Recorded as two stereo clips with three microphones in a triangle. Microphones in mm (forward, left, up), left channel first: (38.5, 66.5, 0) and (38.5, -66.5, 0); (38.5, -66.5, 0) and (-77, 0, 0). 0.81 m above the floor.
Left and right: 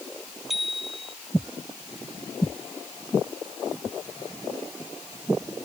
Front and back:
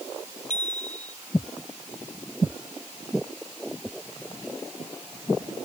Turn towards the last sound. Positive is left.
turn(degrees=0)